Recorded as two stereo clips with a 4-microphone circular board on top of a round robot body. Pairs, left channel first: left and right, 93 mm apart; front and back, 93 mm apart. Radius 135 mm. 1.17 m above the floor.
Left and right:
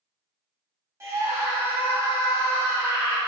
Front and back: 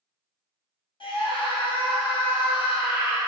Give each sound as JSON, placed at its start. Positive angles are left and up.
{"t": 1.0, "sound": "a scream", "azimuth_deg": -25, "distance_m": 3.5}